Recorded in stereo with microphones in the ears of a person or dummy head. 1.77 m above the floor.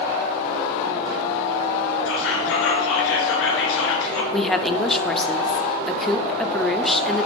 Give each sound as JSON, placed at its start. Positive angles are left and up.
{"t": 2.1, "sound": "whispering", "side_deg": 75, "distance_m": 2.5}
{"t": 4.3, "sound": "a woman speaking", "side_deg": 5, "distance_m": 0.5}